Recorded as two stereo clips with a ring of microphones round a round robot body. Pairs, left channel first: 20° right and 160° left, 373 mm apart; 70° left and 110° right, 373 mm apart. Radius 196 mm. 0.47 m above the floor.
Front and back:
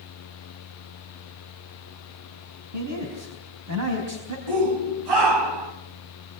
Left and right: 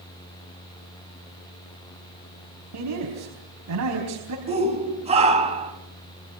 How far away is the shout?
About 3.5 m.